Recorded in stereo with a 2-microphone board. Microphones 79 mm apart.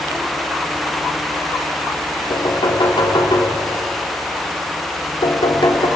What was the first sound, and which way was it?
Knocking, 85° left.